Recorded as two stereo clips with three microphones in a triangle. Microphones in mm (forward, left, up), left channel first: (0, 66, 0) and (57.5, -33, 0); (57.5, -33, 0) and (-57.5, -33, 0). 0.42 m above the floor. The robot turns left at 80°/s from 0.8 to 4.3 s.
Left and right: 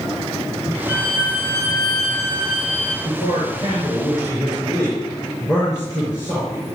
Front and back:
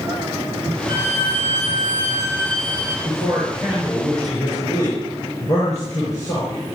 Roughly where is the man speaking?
Behind.